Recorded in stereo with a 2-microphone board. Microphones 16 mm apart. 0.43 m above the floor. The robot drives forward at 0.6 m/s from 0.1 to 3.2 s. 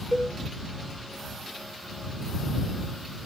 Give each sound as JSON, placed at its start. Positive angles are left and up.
{"t": 0.1, "sound": "a cowbell", "side_deg": -20, "distance_m": 1.3}